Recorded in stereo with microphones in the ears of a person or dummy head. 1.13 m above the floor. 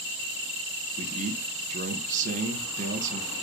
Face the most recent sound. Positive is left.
turn(degrees=-40)  # may be behind; listen again after turning